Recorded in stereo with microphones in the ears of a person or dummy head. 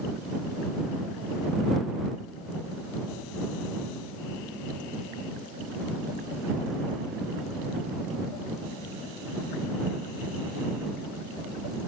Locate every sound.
Only background noise.